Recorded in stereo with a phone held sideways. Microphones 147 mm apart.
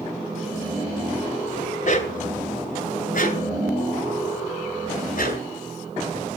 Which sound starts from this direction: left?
A dog barking, at 1.8 s.